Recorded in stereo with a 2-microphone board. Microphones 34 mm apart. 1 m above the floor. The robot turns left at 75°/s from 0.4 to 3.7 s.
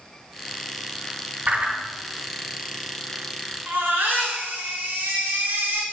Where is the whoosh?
55° right (ahead or behind), 1.7 m; by 1.8 s 30° right (ahead or behind), 1.7 m.